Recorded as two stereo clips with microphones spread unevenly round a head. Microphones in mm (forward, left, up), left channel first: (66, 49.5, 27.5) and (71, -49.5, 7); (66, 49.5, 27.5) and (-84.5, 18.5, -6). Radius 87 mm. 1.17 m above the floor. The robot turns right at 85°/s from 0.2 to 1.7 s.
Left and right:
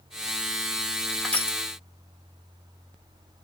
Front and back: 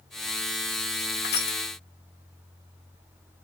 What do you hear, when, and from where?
1.2 s crushing: 10° left, 2.0 m; by 1.6 s 40° left, 2.0 m